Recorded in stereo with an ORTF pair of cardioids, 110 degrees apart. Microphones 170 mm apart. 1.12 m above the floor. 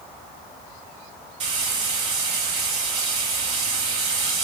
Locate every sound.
1.4 s frying: 40° right, 1.9 m